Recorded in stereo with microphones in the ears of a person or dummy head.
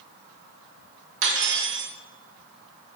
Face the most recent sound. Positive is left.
turn(degrees=-65)  # may be behind; listen again after turning